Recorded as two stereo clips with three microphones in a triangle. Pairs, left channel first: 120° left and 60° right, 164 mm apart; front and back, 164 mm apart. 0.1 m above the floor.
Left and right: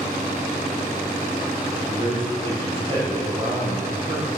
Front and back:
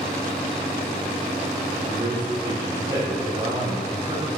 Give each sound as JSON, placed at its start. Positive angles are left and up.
{"t": 1.9, "sound": "a man speaking", "azimuth_deg": -115, "distance_m": 6.5}